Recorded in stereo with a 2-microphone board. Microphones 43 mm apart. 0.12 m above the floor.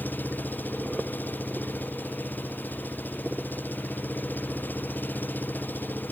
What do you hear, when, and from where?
0.0 s an engine running: 50° left (ahead or behind)